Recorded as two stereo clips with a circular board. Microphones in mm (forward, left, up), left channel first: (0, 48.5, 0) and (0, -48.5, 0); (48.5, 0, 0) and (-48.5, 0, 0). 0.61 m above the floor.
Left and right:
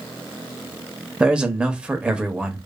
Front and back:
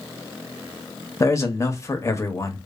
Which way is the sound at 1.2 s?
20° right.